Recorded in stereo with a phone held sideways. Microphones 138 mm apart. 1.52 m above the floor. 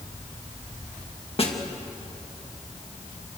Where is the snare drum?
45° left (ahead or behind), 2.5 m.